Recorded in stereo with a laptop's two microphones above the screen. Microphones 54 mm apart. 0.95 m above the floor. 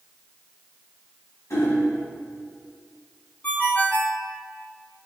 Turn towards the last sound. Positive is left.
turn(degrees=30)  # may be behind; listen again after turning